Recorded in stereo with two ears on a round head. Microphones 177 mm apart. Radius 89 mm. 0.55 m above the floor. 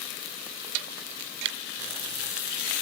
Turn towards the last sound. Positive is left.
turn(degrees=-60)  # may be behind; listen again after turning